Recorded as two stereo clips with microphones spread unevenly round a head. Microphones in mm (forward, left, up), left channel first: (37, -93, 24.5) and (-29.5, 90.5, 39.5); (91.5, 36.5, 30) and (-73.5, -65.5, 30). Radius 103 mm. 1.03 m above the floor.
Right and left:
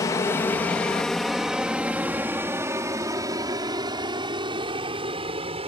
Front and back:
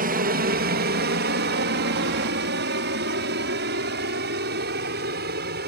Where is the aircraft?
135° right; by 5.7 s 170° left.